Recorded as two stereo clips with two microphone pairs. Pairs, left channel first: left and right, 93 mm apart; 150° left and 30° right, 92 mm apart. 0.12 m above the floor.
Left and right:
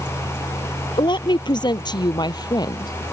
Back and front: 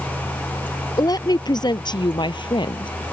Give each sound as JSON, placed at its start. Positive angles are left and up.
{"t": 1.0, "sound": "a woman speaking", "azimuth_deg": 115}